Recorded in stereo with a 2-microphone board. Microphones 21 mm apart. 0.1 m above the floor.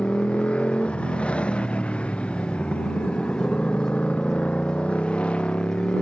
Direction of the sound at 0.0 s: 70° left (ahead or behind).